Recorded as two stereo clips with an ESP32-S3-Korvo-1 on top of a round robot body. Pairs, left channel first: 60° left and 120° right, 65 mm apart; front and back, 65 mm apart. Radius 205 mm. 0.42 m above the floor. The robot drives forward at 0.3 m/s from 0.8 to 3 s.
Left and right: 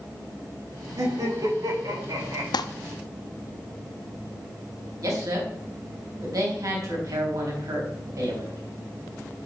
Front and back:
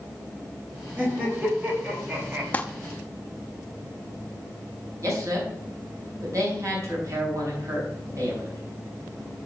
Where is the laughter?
115° right, 4.5 m; by 2.4 s 120° right, 4.5 m.